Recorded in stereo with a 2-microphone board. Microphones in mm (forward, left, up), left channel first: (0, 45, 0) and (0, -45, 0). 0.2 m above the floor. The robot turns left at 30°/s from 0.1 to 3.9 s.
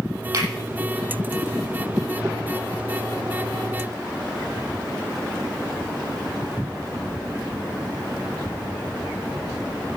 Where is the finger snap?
50° right (ahead or behind), 7.5 m; by 0.5 s 55° right (ahead or behind), 7.5 m.